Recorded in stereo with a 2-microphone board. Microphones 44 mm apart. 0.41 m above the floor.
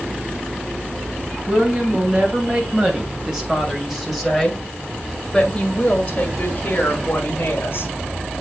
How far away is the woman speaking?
About 3 m.